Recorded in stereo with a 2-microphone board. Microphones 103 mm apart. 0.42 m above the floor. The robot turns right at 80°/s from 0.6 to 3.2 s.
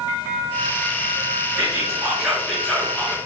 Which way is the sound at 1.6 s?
20° right (ahead or behind).